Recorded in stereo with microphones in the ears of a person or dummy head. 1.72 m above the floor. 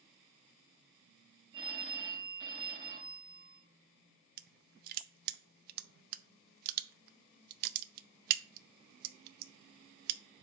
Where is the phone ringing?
30° right (ahead or behind), 1.5 m.